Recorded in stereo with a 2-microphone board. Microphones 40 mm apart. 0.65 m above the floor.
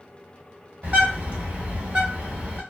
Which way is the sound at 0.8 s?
40° right (ahead or behind).